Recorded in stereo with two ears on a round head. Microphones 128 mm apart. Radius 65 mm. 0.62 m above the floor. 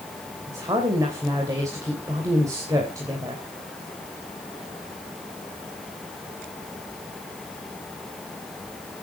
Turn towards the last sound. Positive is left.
turn(degrees=-20)  # may be behind; listen again after turning